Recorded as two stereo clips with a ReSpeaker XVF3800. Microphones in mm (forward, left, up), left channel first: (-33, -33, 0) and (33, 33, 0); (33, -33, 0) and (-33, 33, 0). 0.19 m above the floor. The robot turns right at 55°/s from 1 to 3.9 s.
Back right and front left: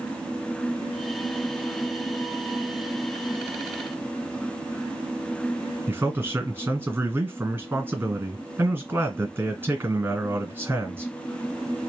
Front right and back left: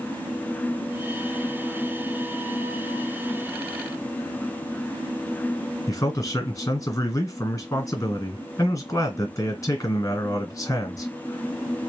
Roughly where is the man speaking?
Ahead.